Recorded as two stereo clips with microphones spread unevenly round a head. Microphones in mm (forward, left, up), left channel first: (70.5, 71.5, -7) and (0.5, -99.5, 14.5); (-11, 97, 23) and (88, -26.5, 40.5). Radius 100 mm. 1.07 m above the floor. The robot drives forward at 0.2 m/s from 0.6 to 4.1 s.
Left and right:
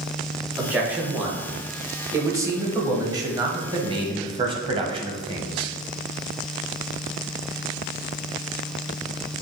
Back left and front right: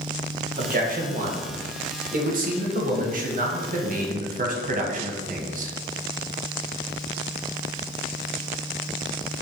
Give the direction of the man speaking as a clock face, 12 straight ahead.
1 o'clock.